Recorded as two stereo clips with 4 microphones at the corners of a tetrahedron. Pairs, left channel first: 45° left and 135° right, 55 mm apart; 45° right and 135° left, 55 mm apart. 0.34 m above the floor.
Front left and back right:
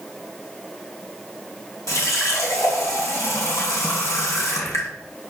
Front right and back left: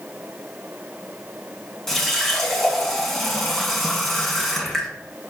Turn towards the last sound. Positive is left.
turn(degrees=40)